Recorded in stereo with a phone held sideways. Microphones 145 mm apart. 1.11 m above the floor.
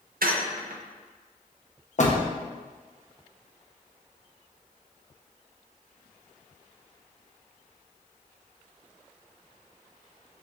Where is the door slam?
55° left (ahead or behind), 0.7 m.